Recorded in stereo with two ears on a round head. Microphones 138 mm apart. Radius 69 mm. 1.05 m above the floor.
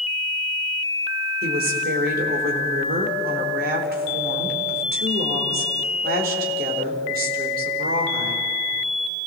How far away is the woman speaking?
About 4 m.